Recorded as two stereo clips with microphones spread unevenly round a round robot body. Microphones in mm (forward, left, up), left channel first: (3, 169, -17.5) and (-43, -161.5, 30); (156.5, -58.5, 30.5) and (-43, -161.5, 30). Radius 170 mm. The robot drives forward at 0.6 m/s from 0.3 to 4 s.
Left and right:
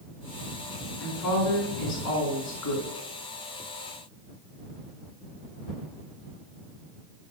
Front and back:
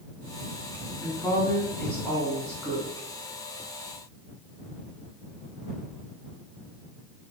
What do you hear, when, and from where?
1.0 s a woman speaking: 105° left, 3.5 m; by 2.9 s 120° left, 4 m